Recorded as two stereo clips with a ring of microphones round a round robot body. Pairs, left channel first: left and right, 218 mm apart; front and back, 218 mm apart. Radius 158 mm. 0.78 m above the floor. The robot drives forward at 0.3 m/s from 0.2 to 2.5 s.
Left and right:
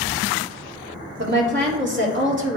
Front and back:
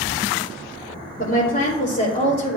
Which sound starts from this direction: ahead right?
A woman speaking, at 1.2 s.